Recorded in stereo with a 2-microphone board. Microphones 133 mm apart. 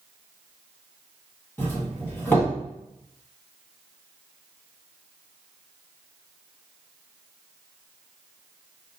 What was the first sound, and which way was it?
A doorbell, 15° left (ahead or behind).